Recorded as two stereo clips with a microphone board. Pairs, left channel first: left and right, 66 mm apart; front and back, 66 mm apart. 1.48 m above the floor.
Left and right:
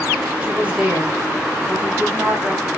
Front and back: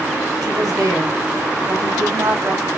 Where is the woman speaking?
160° right, 2 m.